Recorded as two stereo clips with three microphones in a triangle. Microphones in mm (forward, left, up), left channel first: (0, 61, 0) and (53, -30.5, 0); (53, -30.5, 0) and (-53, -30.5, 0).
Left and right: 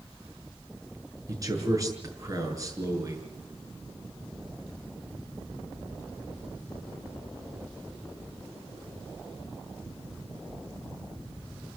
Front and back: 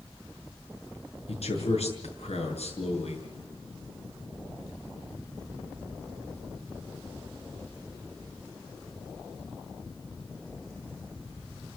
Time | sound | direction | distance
1.3 | a man speaking | 5° right | 7 m